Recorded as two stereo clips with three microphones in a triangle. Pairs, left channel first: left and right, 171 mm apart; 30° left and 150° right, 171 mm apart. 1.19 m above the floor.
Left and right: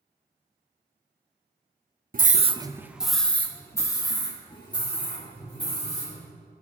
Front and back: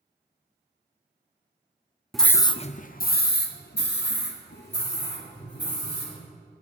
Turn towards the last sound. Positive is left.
turn(degrees=35)